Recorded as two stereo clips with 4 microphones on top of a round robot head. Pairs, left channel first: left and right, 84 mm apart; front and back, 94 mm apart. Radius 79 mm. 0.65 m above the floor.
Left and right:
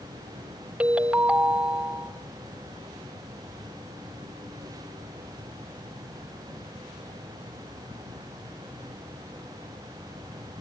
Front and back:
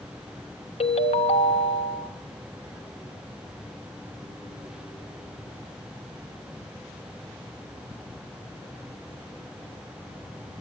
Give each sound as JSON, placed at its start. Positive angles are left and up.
{"t": 0.8, "sound": "a ringtone", "azimuth_deg": -15, "distance_m": 1.1}